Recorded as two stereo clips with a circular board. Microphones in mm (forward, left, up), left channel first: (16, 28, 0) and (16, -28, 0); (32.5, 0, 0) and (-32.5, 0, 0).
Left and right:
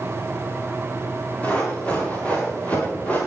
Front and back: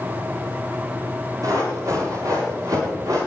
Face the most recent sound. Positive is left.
turn(degrees=155)